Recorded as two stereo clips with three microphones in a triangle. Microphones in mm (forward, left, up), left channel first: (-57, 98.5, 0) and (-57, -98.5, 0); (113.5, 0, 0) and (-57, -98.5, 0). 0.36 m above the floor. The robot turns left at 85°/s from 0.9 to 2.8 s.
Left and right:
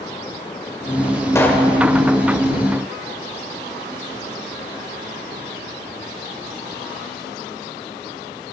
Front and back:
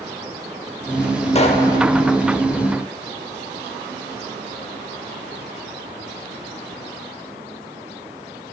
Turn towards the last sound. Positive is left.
turn(degrees=-95)